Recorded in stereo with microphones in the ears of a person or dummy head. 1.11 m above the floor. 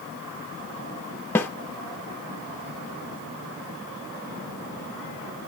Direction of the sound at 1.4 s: 10° left (ahead or behind).